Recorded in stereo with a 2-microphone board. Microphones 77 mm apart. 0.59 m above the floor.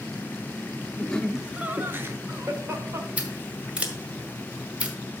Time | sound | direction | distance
1.0 | laughter | 20° left (ahead or behind) | 0.7 m
3.2 | scissors | 15° right (ahead or behind) | 1.7 m